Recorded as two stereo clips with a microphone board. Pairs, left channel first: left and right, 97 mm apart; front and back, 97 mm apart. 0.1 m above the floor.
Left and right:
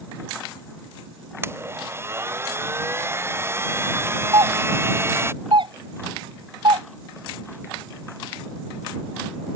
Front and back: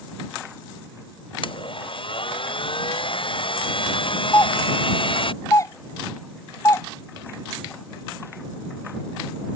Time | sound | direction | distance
1.4 | a blender | 25° right | ?
4.3 | a doorbell | 55° right | ?